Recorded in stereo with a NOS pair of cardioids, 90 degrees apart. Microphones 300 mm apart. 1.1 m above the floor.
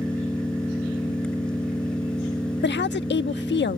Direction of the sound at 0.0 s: 5° left.